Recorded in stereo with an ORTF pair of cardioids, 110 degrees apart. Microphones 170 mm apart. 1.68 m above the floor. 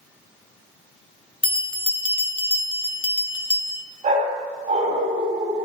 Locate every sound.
1.4 s a bell: 30° left, 0.9 m
4.0 s a dog barking: 45° right, 4 m